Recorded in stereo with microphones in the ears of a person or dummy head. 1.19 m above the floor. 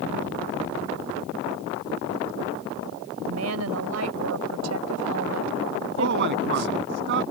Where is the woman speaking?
85° right.